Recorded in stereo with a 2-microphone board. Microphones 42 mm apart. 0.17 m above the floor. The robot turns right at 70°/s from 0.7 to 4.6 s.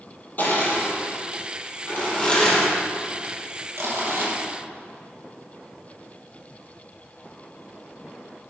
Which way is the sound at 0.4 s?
40° left (ahead or behind).